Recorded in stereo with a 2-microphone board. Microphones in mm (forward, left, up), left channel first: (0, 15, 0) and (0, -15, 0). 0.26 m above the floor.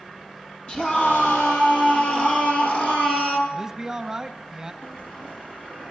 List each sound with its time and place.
0.7 s a scream: 35° left (ahead or behind), 9 m
3.5 s a man speaking: 20° right (ahead or behind), 1.1 m
4.8 s a bell: 45° left (ahead or behind), 7 m